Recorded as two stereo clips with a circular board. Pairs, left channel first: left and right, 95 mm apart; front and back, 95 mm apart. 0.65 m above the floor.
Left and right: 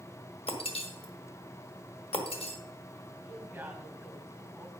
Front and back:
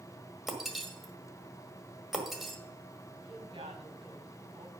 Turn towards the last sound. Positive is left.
turn(degrees=-165)